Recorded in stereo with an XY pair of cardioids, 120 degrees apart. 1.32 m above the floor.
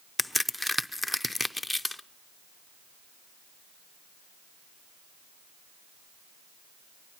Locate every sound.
0.2 s a crack: 5° left, 0.6 m